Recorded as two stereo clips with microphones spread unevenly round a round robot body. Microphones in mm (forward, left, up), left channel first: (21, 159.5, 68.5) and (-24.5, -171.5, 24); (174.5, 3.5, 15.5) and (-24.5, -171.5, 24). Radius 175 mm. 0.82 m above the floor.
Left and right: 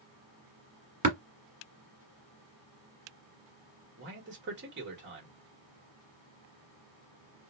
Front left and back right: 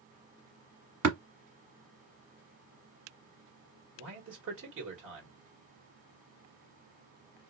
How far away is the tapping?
About 1.2 m.